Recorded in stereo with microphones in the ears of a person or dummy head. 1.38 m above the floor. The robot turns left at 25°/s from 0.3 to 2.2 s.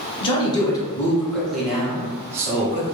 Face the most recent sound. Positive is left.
turn(degrees=-15)